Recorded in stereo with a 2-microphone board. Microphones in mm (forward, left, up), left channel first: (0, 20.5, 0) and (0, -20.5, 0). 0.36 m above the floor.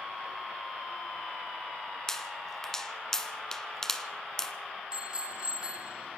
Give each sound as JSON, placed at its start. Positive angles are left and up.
{"t": 2.1, "sound": "a pop", "side_deg": 10, "distance_m": 2.0}
{"t": 4.9, "sound": "a bicycle bell", "side_deg": -25, "distance_m": 3.5}